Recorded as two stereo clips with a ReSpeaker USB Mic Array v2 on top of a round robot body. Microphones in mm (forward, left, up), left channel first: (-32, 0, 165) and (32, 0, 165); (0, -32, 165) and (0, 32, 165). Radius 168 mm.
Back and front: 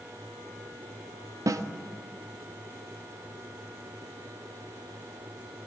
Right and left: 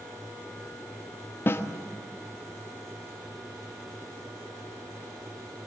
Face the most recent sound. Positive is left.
turn(degrees=-35)